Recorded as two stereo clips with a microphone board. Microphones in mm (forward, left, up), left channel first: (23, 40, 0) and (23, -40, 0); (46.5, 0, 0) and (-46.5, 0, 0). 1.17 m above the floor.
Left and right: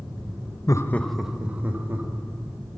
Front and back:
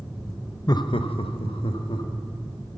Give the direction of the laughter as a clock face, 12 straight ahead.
10 o'clock.